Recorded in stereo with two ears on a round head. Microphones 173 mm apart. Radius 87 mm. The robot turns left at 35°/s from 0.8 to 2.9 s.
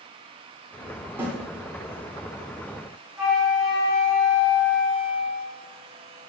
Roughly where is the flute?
Centre.